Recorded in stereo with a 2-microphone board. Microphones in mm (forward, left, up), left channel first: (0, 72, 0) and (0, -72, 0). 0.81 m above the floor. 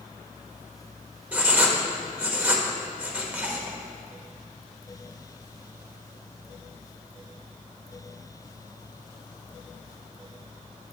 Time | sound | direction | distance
1.3 | writing | 10° right (ahead or behind) | 1.1 m